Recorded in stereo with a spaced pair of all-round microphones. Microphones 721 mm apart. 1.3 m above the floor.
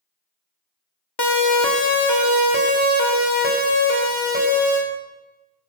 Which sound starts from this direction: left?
A siren, at 1.2 s.